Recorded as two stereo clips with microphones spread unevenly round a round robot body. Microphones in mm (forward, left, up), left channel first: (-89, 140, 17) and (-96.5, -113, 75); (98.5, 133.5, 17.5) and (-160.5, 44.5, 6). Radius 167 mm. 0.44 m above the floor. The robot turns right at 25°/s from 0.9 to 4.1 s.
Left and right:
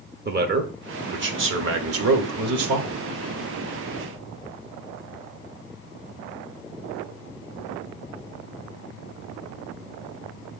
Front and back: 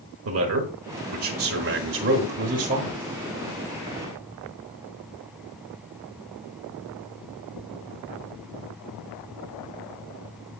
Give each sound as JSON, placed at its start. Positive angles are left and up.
{"t": 0.2, "sound": "a man speaking", "azimuth_deg": -145, "distance_m": 1.3}